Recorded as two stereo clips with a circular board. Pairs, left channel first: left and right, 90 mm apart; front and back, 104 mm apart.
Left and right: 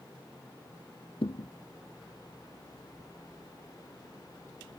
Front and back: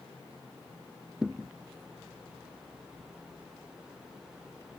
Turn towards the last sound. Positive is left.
turn(degrees=95)